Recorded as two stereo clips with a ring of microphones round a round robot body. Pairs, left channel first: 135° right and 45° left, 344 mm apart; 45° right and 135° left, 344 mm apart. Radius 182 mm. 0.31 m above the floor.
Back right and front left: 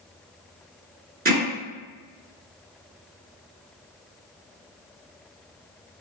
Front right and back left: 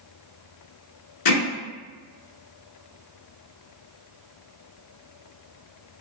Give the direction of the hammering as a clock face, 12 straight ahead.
1 o'clock.